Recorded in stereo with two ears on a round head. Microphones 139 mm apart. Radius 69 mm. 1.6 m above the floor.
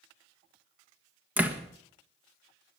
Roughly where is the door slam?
Centre.